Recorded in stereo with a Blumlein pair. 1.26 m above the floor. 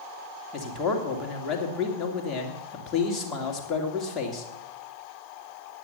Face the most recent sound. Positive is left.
turn(degrees=20)